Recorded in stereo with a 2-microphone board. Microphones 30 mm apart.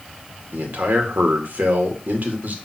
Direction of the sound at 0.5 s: 70° right (ahead or behind).